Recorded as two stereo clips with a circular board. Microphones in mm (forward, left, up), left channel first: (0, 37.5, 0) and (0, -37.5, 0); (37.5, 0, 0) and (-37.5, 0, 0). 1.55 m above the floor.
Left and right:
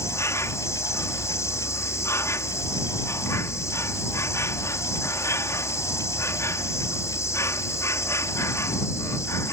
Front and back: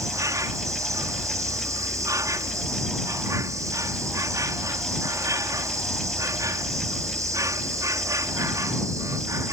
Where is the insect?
140° left.